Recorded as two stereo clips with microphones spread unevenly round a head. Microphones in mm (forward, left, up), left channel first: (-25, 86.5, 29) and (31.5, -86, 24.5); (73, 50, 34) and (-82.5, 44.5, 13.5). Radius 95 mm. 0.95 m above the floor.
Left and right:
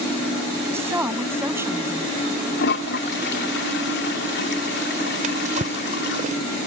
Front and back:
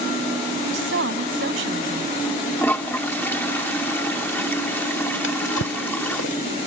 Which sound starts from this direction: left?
A toilet flushing, at 2.6 s.